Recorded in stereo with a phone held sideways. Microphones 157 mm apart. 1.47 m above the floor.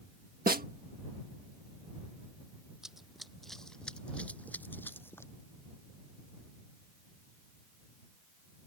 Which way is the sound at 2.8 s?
5° right (ahead or behind).